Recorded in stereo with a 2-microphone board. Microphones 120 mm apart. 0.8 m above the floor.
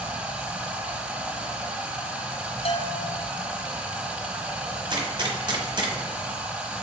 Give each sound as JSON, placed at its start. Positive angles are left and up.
{"t": 0.0, "sound": "running water", "side_deg": -10, "distance_m": 1.0}
{"t": 2.6, "sound": "a bell", "side_deg": 55, "distance_m": 0.6}
{"t": 4.9, "sound": "a gunshot", "side_deg": -40, "distance_m": 1.0}